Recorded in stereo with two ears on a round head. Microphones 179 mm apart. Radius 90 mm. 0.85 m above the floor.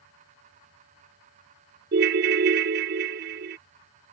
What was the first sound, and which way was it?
A ringtone, 55° right (ahead or behind).